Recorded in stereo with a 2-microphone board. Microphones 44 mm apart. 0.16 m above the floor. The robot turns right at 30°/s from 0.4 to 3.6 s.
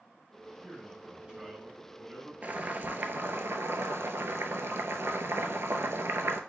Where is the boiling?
140° right, 0.6 m; by 6.4 s 105° right, 0.6 m.